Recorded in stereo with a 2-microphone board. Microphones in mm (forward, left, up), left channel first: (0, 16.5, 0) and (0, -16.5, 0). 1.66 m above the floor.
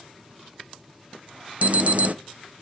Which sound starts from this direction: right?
An alarm, at 1.6 s.